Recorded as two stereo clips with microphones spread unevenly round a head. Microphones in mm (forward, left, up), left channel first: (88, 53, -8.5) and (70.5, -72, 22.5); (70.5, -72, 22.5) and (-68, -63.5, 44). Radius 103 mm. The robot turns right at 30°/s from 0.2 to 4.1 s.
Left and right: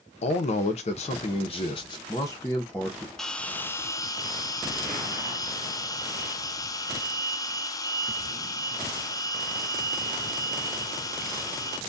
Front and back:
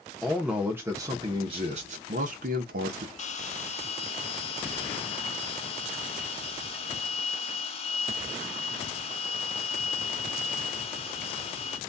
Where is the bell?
5° left, 0.6 m; by 11.8 s 30° left, 0.6 m.